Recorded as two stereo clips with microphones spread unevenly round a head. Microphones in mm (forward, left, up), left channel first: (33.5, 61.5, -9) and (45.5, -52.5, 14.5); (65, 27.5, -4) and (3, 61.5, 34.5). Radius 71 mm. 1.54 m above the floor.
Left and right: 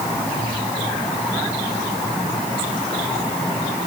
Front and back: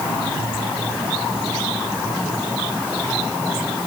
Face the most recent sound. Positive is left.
No sound to turn to.